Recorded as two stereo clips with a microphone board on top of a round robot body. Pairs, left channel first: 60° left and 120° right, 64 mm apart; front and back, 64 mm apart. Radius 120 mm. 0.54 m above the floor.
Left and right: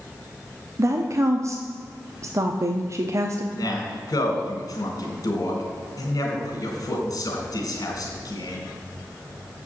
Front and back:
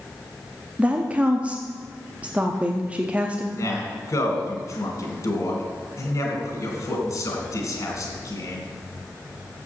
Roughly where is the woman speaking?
Behind right.